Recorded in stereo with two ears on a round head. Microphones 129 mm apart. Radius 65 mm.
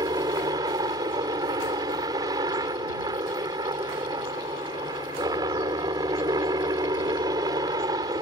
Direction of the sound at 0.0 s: 25° right (ahead or behind).